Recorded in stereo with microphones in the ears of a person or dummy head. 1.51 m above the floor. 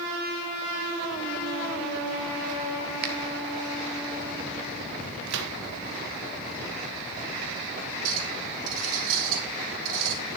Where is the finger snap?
55° right (ahead or behind), 1.4 m.